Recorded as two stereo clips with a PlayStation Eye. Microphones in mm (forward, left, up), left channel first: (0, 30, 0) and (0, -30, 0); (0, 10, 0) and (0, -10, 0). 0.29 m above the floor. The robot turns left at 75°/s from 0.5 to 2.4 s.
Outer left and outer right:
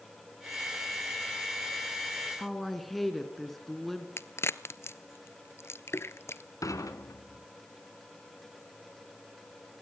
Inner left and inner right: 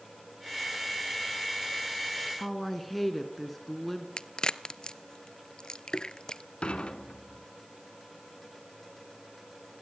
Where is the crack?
45° left (ahead or behind), 0.8 m.